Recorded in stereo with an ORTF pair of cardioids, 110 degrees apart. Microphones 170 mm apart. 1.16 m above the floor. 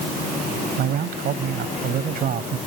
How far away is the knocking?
No knocking in this recording.